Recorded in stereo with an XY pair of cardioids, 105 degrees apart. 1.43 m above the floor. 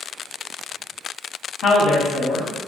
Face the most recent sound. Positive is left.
turn(degrees=65)